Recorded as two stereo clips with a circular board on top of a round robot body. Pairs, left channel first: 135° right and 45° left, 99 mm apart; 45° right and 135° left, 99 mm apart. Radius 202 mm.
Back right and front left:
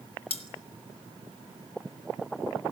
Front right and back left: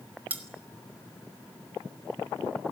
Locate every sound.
0.3 s cutlery clinking: 150° right, 1.3 m